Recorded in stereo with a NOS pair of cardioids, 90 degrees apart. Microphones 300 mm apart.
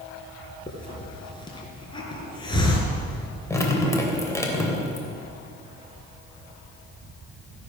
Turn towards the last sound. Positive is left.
turn(degrees=10)